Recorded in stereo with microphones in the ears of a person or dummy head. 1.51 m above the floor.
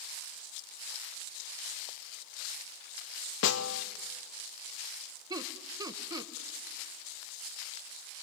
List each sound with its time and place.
3.4 s a snare drum: 65° left (ahead or behind), 1.0 m
5.3 s laughter: 20° right (ahead or behind), 1.5 m